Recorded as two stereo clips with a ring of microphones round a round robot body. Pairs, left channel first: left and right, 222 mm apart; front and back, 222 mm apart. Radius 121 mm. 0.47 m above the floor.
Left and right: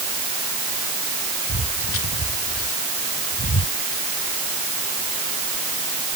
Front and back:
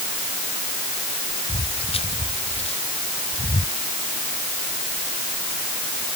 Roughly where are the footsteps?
Ahead left.